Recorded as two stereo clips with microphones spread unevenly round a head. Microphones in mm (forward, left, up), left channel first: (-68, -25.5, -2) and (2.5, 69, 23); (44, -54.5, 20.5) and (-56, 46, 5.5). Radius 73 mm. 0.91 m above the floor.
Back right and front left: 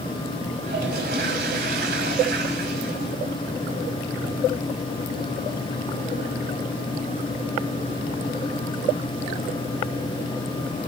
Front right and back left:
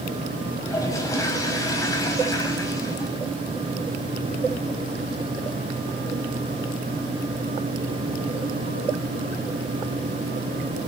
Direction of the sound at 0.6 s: 25° left.